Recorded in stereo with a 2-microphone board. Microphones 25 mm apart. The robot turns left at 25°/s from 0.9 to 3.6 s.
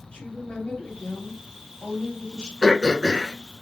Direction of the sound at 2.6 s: 5° left (ahead or behind).